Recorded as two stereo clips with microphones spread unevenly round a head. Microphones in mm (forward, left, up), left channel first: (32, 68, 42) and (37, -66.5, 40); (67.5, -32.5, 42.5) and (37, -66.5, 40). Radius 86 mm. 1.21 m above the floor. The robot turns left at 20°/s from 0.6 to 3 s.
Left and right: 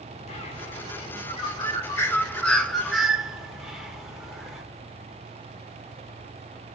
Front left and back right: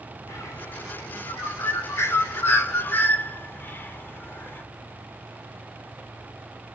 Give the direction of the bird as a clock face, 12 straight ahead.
10 o'clock.